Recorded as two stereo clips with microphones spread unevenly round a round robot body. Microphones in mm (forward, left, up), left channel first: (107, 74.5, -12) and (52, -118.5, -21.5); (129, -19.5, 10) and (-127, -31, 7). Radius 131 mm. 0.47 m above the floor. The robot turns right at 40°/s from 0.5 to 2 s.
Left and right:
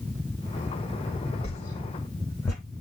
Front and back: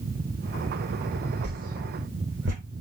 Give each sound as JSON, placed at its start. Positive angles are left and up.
{"t": 1.4, "sound": "a whoosh", "azimuth_deg": 130, "distance_m": 1.4}